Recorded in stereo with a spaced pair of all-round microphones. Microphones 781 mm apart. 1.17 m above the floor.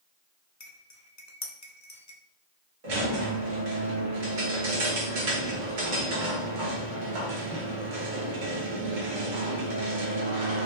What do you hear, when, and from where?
0.6 s cutlery clinking: 25° left (ahead or behind), 0.5 m
2.8 s a squeak: 80° right, 1.1 m